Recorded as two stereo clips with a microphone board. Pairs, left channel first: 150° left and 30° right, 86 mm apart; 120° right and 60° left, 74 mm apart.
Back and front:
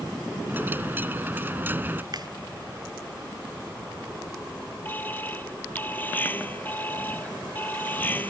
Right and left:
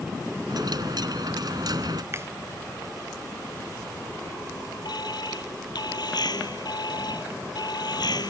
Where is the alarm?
140° right.